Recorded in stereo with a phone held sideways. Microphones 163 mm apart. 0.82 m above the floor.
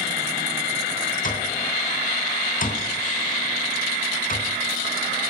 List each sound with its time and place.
1.2 s an alarm clock: 55° left (ahead or behind), 3 m